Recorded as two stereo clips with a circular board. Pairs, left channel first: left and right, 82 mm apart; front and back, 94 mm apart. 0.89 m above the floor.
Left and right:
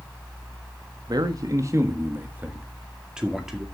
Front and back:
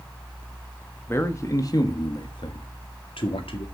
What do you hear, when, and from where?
1.1 s a man speaking: 60° right, 1.3 m; by 3.6 s 5° right, 2 m